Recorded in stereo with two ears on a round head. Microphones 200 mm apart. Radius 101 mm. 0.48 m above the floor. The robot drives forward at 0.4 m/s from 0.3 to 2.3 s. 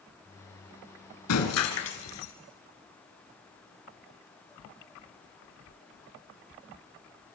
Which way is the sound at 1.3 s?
85° left.